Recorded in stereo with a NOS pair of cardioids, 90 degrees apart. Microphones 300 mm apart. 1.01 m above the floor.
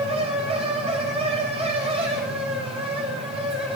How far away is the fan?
About 7 m.